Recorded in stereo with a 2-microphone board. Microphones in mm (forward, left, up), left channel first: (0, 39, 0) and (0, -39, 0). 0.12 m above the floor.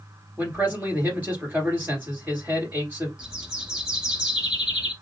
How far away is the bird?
About 1.2 m.